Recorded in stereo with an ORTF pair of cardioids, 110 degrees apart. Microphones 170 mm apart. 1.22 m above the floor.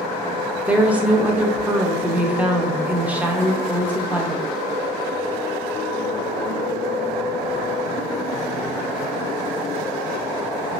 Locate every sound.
0.7 s a woman speaking: 10° right, 0.6 m